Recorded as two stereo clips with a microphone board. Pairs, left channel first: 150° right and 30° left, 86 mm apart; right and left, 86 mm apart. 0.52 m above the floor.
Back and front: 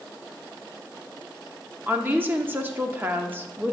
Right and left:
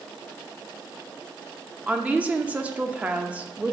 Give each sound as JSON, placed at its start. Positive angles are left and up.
{"t": 1.9, "sound": "a woman speaking", "azimuth_deg": 40, "distance_m": 0.7}